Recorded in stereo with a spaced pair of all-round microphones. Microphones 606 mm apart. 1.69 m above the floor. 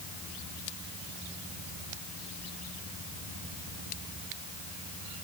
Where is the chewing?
No chewing in this recording.